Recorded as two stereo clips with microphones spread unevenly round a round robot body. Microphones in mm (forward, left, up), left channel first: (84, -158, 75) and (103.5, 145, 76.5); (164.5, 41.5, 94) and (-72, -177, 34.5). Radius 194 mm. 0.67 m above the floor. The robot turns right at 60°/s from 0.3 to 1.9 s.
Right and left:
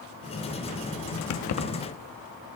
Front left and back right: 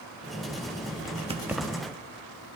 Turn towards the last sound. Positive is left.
turn(degrees=-30)